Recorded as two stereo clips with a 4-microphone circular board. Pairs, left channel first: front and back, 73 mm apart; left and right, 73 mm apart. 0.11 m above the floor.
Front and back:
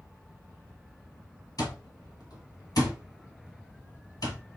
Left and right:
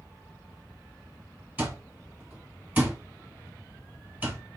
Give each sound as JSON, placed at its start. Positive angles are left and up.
{"t": 1.6, "sound": "an alarm clock", "azimuth_deg": -25, "distance_m": 1.7}